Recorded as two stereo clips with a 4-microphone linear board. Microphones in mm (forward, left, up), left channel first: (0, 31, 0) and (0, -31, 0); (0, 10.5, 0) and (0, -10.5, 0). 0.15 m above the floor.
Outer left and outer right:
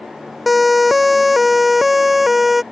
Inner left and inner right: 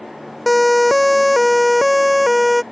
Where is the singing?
No singing in this recording.